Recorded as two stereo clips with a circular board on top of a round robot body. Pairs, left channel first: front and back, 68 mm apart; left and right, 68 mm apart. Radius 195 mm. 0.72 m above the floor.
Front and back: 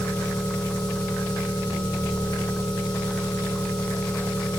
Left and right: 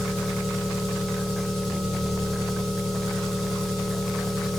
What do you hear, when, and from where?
0.0 s an engine running: 5° left, 3 m